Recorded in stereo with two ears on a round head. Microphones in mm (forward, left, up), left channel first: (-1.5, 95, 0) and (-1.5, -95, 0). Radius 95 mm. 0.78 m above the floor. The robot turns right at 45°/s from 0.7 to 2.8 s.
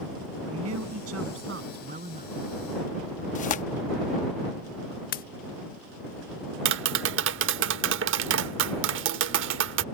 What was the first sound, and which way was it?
A man speaking, 95° right.